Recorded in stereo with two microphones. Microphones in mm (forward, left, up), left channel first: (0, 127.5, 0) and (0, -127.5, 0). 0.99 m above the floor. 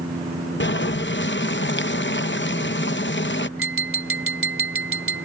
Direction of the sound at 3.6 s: 55° right (ahead or behind).